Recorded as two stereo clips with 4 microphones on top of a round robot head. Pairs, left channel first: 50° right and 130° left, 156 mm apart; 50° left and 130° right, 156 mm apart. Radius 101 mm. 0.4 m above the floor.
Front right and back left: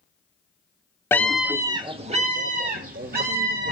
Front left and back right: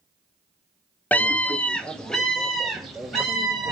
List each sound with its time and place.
1.1 s a scream: 5° right, 0.9 m; by 3.7 s 140° left, 2.5 m